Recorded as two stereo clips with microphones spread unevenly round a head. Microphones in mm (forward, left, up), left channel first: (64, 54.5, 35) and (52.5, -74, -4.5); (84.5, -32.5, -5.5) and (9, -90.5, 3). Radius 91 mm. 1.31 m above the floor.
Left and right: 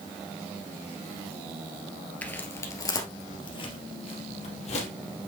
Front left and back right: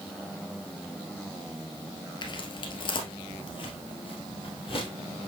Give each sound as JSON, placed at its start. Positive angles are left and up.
{"t": 2.2, "sound": "footsteps", "azimuth_deg": 30, "distance_m": 1.8}